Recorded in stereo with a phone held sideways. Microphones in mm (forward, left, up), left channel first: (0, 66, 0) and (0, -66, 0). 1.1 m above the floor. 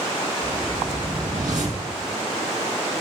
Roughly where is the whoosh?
Right.